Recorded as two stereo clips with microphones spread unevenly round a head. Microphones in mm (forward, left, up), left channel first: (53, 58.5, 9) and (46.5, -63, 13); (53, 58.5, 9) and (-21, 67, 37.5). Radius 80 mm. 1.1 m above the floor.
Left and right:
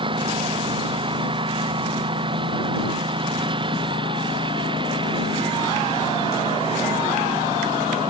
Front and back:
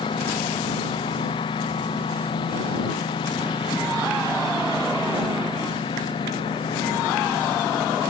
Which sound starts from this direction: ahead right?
A lawn mower, at 0.0 s.